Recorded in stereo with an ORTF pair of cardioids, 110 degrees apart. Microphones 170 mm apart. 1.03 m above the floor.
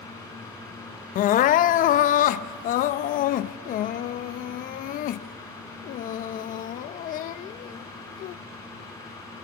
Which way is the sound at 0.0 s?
20° left.